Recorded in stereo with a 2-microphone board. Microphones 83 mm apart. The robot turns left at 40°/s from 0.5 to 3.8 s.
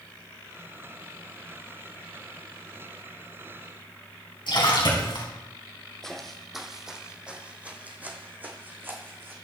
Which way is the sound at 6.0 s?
5° left (ahead or behind).